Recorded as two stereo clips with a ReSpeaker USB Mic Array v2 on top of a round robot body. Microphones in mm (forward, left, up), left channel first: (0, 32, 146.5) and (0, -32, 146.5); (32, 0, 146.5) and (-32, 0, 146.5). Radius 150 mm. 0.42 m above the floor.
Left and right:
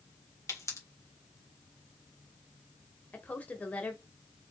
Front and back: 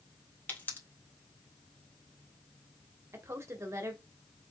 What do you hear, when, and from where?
0.5 s a pop: 55° left, 2 m
3.1 s a woman speaking: 150° left, 1.3 m